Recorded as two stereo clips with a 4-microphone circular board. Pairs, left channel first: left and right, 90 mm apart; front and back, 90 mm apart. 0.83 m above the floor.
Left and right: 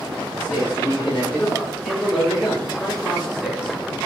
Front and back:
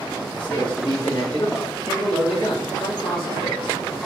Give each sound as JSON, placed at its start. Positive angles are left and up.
{"t": 0.3, "sound": "a man speaking", "azimuth_deg": 25, "distance_m": 3.5}